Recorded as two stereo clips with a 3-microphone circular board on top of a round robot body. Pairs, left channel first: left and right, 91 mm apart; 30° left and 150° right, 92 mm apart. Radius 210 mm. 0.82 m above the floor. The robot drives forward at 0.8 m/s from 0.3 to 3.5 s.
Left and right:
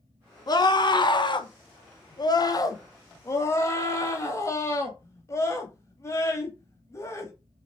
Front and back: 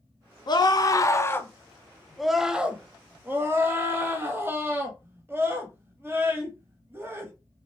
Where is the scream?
55° left, 1.6 m; by 7.3 s 145° left, 2 m.